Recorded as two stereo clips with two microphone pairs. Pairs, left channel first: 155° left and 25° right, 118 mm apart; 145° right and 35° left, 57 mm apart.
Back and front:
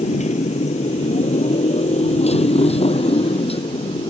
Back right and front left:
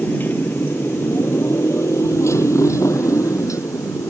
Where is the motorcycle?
155° left; by 4.1 s 170° right.